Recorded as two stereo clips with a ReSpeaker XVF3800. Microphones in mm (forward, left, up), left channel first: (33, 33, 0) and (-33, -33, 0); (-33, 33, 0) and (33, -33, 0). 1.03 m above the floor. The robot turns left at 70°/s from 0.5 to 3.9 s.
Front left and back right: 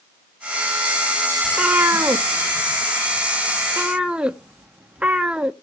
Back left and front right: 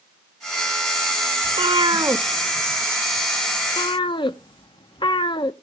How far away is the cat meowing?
About 0.6 m.